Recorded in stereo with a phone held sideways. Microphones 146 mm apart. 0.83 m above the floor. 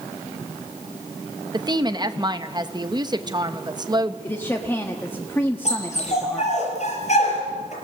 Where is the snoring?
I don't hear snoring.